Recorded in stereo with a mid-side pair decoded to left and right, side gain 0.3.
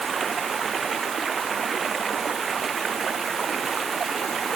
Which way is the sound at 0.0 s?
60° right.